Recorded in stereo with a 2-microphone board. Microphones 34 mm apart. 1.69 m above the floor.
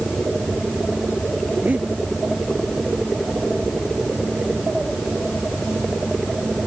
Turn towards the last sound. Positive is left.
turn(degrees=-50)  # may be behind; listen again after turning